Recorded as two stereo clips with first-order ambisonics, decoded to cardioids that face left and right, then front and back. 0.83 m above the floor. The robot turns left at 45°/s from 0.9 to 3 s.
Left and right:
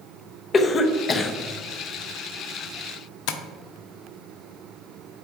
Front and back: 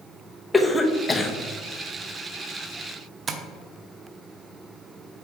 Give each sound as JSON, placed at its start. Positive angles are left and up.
{"t": 0.5, "sound": "a cough", "azimuth_deg": 70, "distance_m": 0.7}
{"t": 3.3, "sound": "tapping", "azimuth_deg": 110, "distance_m": 0.7}